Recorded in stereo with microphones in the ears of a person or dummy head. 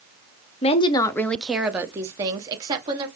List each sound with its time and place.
0.6 s a woman speaking: 30° left (ahead or behind), 0.6 m; by 3.1 s 25° right (ahead or behind), 1.3 m